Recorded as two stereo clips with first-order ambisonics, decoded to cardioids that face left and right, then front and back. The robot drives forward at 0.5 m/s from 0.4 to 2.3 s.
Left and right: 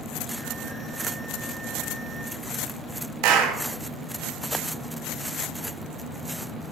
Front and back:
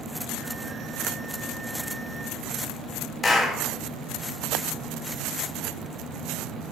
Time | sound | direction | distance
3.2 | a clap | 75° right | 0.8 m